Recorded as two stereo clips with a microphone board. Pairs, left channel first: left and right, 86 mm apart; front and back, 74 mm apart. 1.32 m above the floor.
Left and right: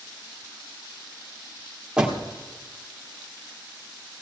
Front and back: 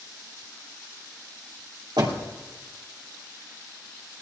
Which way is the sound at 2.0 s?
170° right.